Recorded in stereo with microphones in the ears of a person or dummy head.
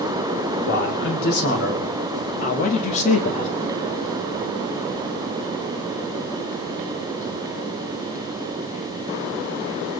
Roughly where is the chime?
I don't hear a chime.